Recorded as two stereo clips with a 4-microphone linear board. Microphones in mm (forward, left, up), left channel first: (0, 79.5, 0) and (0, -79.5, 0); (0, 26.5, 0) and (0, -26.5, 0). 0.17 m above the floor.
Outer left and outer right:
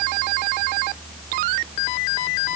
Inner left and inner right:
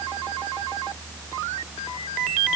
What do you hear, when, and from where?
Only background noise.